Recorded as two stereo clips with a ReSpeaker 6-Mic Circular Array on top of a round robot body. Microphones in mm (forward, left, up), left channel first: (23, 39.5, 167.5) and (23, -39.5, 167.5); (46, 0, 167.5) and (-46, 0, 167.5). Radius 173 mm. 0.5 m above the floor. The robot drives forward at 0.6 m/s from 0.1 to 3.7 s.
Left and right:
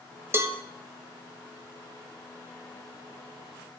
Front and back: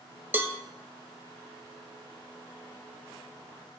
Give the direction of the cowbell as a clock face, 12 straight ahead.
4 o'clock.